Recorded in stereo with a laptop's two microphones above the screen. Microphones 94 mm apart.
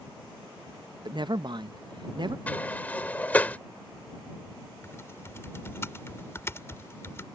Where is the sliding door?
20° left (ahead or behind).